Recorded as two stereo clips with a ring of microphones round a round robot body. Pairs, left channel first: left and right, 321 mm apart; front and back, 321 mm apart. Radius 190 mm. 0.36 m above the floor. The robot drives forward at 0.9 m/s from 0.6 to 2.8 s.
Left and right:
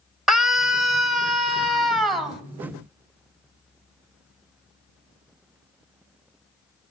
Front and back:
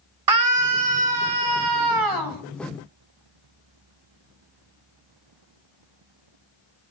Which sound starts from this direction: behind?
A scream, at 0.3 s.